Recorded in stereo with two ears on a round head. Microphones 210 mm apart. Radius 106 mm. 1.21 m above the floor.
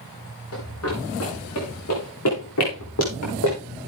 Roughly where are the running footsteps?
Left.